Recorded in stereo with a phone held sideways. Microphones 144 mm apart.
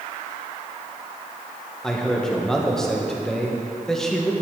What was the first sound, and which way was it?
A man speaking, 5° left (ahead or behind).